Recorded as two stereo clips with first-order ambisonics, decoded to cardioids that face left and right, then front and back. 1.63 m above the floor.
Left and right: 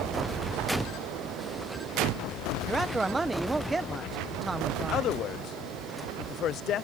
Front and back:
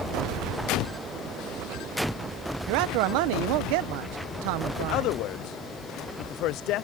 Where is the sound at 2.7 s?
170° right.